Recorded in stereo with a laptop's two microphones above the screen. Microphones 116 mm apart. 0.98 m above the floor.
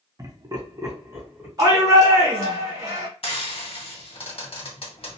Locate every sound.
0.2 s laughter: 30° right (ahead or behind), 0.7 m; by 1.5 s 20° right (ahead or behind), 1.3 m
1.6 s a shout: 30° right (ahead or behind), 0.9 m
3.2 s frying: 55° left (ahead or behind), 1.1 m